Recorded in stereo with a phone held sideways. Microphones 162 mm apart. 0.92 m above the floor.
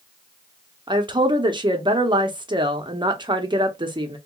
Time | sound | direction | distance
0.9 | a woman speaking | 30° right (ahead or behind) | 0.7 m